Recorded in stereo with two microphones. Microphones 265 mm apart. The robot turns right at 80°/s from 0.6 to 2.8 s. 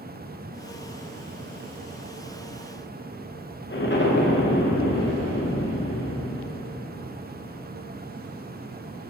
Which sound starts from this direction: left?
An explosion, at 3.7 s.